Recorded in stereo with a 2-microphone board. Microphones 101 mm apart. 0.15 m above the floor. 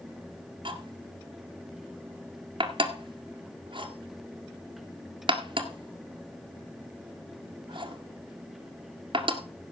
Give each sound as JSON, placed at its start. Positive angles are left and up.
{"t": 0.7, "sound": "cutlery clinking", "side_deg": -60, "distance_m": 1.8}